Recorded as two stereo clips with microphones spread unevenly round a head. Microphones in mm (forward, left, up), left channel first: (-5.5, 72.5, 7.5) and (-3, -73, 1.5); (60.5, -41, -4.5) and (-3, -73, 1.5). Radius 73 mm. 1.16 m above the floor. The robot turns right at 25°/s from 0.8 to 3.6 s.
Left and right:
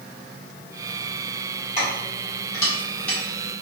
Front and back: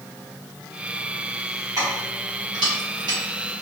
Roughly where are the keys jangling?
Behind left.